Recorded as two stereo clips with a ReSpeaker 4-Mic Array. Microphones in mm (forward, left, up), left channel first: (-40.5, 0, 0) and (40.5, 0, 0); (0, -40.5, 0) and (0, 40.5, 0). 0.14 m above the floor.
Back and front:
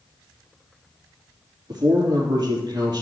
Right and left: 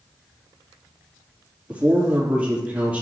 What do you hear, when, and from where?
1.7 s a man speaking: 20° left, 3.5 m